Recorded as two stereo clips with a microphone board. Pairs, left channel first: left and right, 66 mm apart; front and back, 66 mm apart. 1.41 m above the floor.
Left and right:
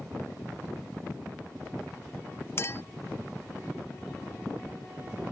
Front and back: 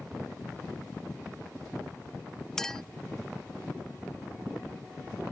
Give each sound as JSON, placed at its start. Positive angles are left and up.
{"t": 2.6, "sound": "a clink", "azimuth_deg": 80}